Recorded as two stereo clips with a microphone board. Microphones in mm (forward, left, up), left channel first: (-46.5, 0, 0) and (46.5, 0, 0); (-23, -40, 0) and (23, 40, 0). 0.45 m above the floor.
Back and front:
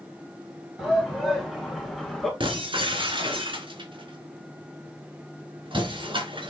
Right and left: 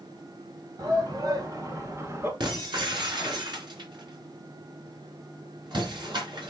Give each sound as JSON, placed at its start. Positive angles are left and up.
{"t": 0.8, "sound": "a shout", "azimuth_deg": 90, "distance_m": 2.0}
{"t": 2.4, "sound": "breaking glass", "azimuth_deg": 25, "distance_m": 3.0}